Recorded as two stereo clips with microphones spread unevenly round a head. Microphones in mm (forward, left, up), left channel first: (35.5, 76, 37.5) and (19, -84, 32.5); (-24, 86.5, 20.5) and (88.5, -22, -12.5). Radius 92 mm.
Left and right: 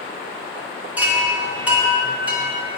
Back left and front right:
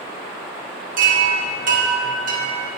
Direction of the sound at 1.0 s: 15° right.